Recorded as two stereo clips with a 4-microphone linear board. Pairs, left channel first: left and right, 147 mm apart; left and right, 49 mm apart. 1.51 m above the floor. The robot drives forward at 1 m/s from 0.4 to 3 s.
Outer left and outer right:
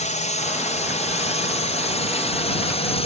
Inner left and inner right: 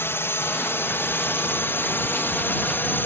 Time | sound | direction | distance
0.0 | a drone | 50° left (ahead or behind) | ?